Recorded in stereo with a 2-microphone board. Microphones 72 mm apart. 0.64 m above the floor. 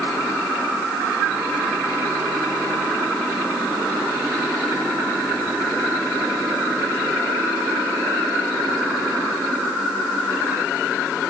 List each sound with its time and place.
Only background noise.